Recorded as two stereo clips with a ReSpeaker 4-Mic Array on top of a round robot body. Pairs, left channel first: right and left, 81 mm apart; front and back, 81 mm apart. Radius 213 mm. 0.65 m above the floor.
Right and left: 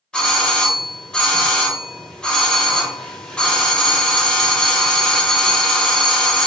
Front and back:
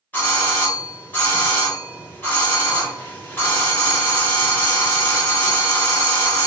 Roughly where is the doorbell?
Ahead right.